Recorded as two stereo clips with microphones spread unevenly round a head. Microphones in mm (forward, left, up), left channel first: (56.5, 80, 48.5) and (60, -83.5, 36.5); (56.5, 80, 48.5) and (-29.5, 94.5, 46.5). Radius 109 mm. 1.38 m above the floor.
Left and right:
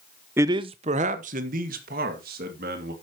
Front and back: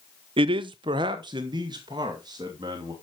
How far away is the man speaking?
About 0.5 m.